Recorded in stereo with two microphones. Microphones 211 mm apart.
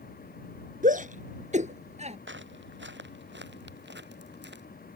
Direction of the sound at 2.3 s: 65° right (ahead or behind).